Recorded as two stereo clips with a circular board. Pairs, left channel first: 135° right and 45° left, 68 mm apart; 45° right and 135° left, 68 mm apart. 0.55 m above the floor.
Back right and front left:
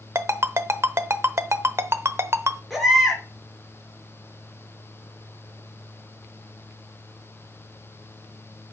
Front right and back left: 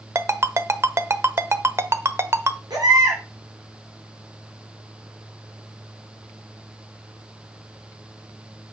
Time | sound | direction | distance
0.1 | a ringtone | 90° left | 0.8 m
2.7 | a baby crying | 135° left | 5.5 m